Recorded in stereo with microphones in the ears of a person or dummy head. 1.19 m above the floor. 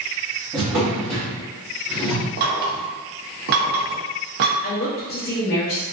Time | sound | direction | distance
0.5 | a drawer | 15° right (ahead or behind) | 0.7 m
2.4 | knocking | 55° right (ahead or behind) | 0.5 m
4.6 | a woman speaking | 45° left (ahead or behind) | 0.7 m